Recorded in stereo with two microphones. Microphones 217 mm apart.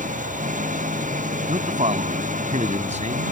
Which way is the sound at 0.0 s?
35° right (ahead or behind).